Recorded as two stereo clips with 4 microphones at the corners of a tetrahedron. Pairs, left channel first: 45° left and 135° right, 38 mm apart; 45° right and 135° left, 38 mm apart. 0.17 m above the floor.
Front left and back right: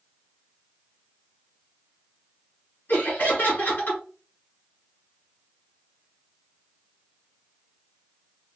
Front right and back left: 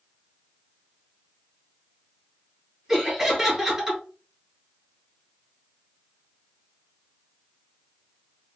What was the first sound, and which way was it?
Laughter, 60° left.